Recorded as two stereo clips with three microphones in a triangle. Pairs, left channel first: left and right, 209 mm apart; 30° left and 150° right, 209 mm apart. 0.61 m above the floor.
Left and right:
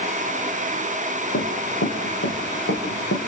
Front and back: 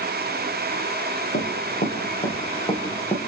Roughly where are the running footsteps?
Left.